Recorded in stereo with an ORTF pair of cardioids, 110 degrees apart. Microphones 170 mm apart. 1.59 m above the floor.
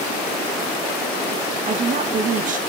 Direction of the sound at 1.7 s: 50° right.